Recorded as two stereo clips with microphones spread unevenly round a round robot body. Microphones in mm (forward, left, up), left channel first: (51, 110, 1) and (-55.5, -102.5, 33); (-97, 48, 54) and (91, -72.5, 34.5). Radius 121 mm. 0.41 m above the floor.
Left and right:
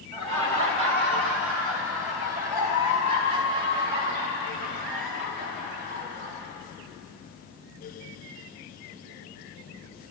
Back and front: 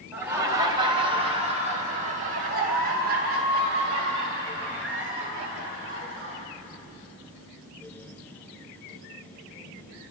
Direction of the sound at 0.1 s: 105° right.